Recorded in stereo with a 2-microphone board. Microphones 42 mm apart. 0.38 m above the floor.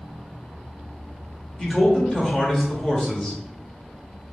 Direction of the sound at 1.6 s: 15° left (ahead or behind).